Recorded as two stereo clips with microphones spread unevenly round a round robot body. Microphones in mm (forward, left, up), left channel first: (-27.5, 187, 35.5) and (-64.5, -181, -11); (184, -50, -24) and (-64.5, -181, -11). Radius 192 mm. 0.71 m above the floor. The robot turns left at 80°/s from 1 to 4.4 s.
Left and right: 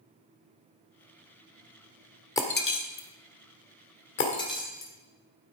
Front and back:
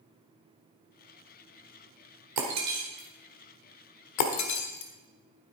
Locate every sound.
2.4 s breaking glass: 165° left, 1.3 m; by 5.5 s 5° left, 1.3 m